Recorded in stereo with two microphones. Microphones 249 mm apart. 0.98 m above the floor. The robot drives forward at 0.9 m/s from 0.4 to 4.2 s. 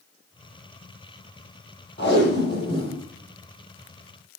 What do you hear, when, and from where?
2.0 s tape being pulled: 45° left (ahead or behind), 7.5 m; by 3.0 s 40° left (ahead or behind), 8 m